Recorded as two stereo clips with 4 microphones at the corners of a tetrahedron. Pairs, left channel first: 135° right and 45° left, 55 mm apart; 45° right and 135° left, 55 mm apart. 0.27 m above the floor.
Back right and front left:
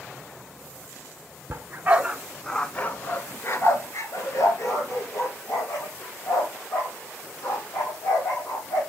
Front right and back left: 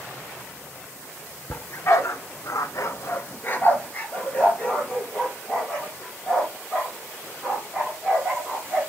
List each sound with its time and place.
1.5 s a dog barking: 5° right, 0.9 m; by 8.8 s 130° right, 4.5 m